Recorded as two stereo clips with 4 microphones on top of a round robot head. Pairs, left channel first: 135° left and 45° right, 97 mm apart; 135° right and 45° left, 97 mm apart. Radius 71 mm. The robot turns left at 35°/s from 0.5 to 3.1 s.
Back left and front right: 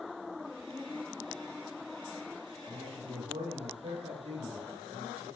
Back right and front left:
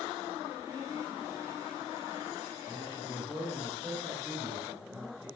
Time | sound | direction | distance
2.7 | a man speaking | 5° right | 5.5 m